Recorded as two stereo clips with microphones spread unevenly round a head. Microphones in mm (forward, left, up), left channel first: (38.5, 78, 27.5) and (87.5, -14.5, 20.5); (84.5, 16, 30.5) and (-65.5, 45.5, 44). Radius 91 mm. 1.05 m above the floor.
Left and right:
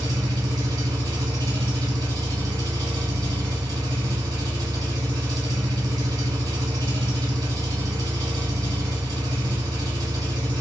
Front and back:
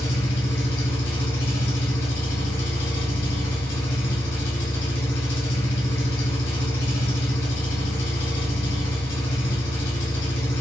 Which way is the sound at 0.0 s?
15° right.